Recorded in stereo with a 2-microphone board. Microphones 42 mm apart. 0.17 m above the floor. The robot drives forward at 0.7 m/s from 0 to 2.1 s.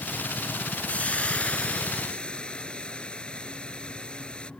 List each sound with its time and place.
0.9 s frying: 30° left (ahead or behind); by 4.5 s 25° left (ahead or behind)